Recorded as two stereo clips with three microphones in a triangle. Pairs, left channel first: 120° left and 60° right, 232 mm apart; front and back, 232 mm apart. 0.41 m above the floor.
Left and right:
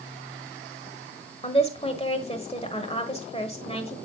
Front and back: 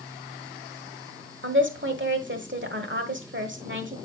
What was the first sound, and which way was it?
A woman speaking, 175° left.